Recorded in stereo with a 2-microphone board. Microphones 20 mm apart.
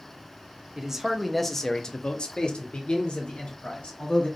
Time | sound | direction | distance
0.8 | a man speaking | 20° right (ahead or behind) | 0.6 m